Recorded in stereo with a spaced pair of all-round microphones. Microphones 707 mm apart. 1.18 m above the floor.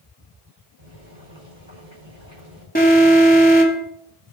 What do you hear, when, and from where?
0.8 s boiling: 40° right (ahead or behind), 5.5 m
2.8 s an alarm: 10° left (ahead or behind), 2.5 m